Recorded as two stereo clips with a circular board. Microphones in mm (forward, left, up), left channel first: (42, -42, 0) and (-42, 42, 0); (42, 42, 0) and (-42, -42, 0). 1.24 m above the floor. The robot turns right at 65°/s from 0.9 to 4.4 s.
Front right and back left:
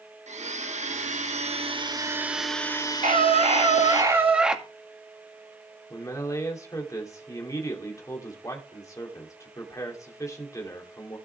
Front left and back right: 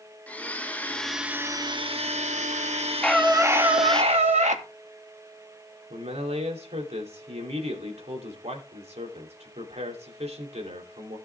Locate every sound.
0.3 s a blender: 125° left, 1.1 m; by 4.0 s 35° right, 1.1 m
3.0 s a scream: 130° left, 2 m; by 4.6 s 145° right, 2 m
5.9 s a man speaking: 110° right, 3 m